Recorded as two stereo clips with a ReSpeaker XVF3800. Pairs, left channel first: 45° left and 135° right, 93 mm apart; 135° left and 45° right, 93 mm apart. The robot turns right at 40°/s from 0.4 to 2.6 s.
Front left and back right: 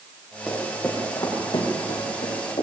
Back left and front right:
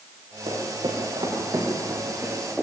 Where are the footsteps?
40° right, 8.5 m; by 2.6 s 45° left, 9.5 m.